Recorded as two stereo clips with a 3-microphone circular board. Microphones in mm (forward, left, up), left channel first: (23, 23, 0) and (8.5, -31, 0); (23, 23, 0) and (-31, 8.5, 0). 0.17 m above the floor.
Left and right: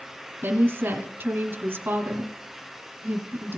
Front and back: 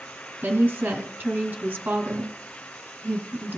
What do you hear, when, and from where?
0.4 s a woman speaking: 125° right, 1.6 m